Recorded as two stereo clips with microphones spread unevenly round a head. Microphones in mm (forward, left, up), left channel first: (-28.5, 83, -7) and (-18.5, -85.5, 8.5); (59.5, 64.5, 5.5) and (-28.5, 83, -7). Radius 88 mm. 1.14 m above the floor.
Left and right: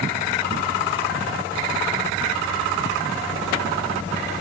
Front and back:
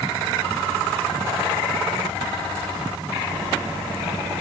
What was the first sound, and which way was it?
Only background noise.